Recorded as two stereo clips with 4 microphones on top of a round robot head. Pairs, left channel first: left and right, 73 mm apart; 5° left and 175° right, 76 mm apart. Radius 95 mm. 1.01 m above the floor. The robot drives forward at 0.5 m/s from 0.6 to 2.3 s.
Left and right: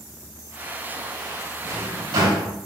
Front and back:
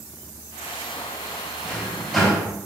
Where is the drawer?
80° right, 3 m; by 2.5 s 85° right, 3 m.